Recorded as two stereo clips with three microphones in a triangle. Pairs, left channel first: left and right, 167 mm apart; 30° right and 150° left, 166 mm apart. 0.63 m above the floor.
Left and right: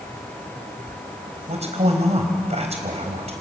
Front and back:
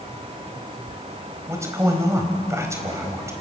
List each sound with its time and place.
1.5 s a man speaking: 140° right, 4 m